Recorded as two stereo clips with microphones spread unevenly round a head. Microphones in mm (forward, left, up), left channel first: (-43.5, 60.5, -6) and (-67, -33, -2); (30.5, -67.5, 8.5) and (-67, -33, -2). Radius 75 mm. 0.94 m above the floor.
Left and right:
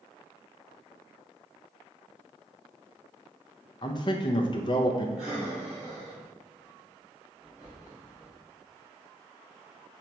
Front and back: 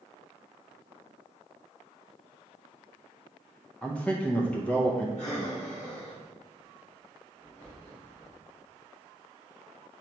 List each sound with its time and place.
3.8 s a man speaking: 60° left, 0.5 m
5.2 s breathing: 25° right, 2 m